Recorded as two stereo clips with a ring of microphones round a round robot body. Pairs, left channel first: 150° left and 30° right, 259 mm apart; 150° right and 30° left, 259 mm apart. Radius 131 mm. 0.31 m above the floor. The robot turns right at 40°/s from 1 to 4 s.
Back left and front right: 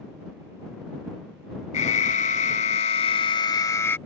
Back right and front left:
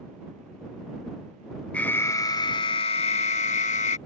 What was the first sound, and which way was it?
An alarm, 130° left.